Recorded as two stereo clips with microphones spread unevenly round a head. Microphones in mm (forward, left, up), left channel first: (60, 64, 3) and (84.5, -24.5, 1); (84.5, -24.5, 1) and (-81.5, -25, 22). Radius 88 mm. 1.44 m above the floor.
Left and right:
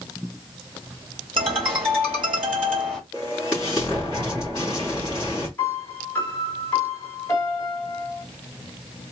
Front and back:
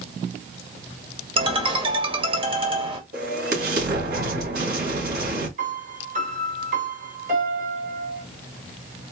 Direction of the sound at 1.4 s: 125° right.